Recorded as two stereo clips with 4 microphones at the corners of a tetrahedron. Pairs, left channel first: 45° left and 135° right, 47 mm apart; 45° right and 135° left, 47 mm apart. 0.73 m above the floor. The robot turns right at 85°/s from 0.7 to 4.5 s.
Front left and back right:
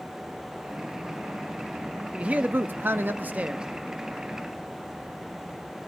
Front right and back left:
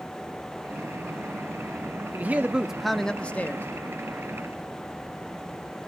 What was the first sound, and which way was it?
A man speaking, 165° left.